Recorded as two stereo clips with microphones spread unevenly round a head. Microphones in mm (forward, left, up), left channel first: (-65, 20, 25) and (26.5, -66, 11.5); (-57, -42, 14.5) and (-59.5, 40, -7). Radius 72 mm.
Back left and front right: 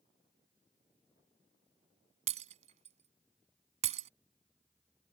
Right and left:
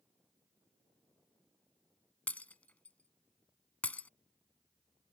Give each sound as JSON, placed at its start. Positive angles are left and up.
{"t": 2.3, "sound": "breaking glass", "azimuth_deg": -45}